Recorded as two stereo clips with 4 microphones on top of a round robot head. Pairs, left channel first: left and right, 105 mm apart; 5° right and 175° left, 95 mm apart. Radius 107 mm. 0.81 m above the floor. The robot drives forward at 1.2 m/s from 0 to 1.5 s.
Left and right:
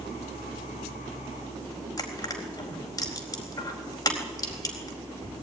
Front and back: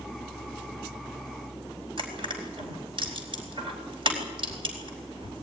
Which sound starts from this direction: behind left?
Crushing, at 2.0 s.